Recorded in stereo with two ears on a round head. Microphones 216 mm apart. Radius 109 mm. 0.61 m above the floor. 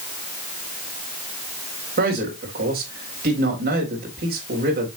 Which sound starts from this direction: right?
A man speaking, at 2.0 s.